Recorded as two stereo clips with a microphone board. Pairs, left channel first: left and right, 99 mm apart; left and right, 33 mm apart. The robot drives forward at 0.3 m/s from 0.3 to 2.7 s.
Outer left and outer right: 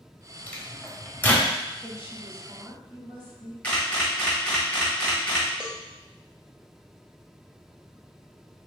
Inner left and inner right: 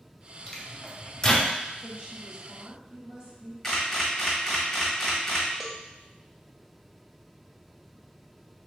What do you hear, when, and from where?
0.5 s a microwave: 20° left (ahead or behind), 0.8 m
1.8 s a woman speaking: 25° right (ahead or behind), 1.0 m; by 3.5 s 20° right (ahead or behind), 1.1 m
3.6 s a camera shutter: 10° left (ahead or behind), 1.5 m
5.6 s a cowbell: 10° right (ahead or behind), 0.6 m